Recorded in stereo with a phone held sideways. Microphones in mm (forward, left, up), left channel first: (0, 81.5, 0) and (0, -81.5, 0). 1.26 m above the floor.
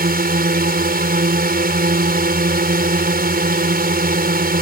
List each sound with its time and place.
0.0 s a drone: 70° right (ahead or behind)